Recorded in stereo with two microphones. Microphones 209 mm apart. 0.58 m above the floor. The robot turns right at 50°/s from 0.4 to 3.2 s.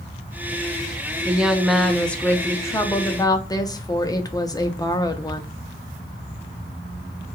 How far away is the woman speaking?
About 0.6 m.